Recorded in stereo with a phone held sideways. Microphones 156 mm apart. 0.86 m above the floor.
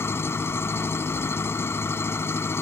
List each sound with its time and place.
0.0 s an engine running: 15° left (ahead or behind)